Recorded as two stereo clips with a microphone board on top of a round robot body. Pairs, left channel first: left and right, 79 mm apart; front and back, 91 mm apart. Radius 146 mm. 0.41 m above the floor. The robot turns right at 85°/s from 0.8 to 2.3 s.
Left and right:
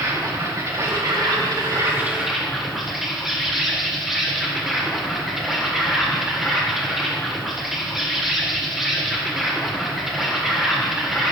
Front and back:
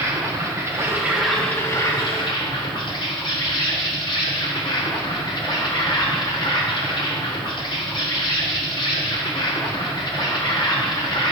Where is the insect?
130° right, 2.5 m; by 11.3 s 5° right, 2.5 m.